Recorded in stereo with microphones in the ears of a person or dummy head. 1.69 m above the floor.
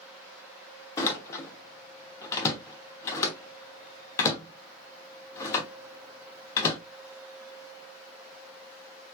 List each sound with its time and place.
1.0 s a door slam: 20° left (ahead or behind), 0.9 m